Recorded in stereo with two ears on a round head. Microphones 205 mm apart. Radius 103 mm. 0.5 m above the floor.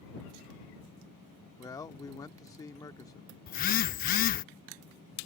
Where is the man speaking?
15° left (ahead or behind).